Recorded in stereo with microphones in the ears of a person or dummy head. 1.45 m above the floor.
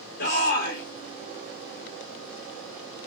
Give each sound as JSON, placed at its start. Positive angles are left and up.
{"t": 0.2, "sound": "a shout", "side_deg": 55, "distance_m": 1.3}